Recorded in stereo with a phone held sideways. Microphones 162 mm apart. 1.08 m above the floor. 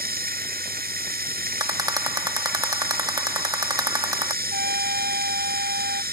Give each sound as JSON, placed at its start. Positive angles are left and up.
{"t": 0.0, "sound": "running water", "side_deg": -70}
{"t": 1.6, "sound": "a rattle", "side_deg": -25}
{"t": 4.5, "sound": "a trumpet", "side_deg": -80}